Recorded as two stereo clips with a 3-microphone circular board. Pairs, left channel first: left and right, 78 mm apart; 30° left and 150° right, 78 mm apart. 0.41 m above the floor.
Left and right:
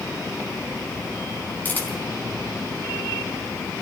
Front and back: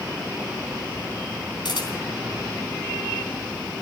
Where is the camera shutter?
25° left, 3.5 m.